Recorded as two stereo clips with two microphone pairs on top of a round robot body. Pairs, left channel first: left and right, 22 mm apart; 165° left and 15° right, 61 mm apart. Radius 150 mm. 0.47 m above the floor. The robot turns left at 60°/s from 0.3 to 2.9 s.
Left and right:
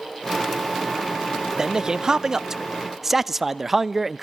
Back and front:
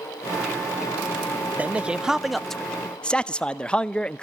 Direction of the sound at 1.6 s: 75° right.